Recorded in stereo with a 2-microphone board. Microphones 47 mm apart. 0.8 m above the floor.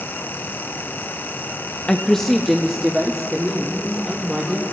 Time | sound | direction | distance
1.9 | a woman speaking | 20° left (ahead or behind) | 0.5 m